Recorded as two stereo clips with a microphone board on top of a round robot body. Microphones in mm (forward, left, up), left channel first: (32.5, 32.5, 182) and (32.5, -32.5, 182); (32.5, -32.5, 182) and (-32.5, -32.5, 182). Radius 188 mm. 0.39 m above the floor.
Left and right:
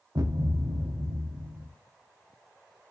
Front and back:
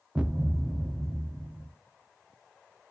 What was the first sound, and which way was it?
A thud, 105° right.